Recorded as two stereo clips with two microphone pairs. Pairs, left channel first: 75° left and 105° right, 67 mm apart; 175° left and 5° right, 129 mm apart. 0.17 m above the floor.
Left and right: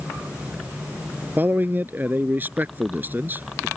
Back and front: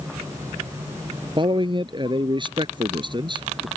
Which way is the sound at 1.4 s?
50° right.